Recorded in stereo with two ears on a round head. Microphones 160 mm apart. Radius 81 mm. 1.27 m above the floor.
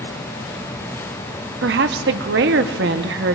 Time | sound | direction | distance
1.6 | a woman speaking | 70° right (ahead or behind) | 0.8 m